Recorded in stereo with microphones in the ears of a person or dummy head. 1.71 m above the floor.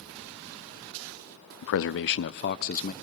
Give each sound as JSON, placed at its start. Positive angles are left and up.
{"t": 1.6, "sound": "a man speaking", "side_deg": 60, "distance_m": 0.7}